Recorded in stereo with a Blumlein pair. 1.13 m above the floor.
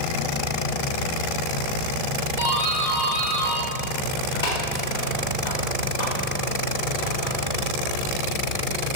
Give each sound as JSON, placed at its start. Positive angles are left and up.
{"t": 2.4, "sound": "a doorbell", "azimuth_deg": 70, "distance_m": 2.5}